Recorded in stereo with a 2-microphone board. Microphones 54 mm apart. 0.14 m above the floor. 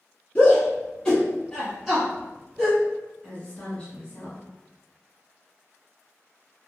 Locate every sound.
0.3 s a shout: 25° left (ahead or behind), 1.2 m; by 2.8 s 15° right (ahead or behind), 1.6 m
3.2 s a woman speaking: 20° left (ahead or behind), 1.1 m